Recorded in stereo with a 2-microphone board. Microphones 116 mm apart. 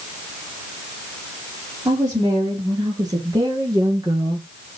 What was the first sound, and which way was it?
A woman speaking, 35° right (ahead or behind).